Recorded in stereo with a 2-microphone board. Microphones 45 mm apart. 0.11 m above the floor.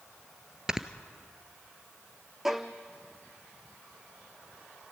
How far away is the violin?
About 1.4 m.